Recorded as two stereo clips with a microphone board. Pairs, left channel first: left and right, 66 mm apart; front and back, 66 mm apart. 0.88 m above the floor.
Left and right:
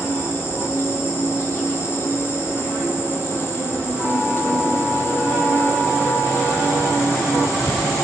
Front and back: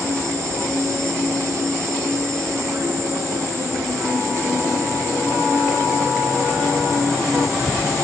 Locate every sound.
0.0 s an insect: 140° left, 3.5 m